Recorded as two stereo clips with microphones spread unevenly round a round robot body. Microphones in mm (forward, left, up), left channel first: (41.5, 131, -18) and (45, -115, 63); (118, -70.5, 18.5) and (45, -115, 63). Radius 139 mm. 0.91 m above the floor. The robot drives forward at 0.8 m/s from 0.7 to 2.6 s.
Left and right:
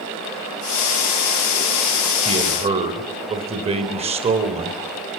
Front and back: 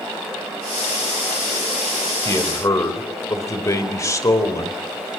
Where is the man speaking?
20° right, 4 m.